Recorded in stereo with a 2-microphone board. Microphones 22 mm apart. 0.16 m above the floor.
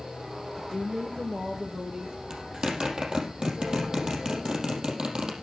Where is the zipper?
40° right (ahead or behind), 4.5 m.